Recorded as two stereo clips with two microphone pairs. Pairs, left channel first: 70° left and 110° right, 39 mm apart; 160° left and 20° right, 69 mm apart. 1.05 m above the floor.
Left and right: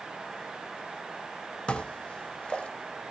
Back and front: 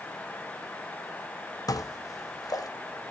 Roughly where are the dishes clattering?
Behind left.